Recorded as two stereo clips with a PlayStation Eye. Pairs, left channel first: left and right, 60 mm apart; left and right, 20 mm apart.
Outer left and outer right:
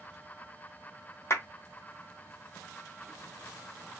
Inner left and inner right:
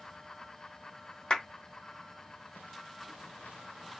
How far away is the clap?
About 1.6 m.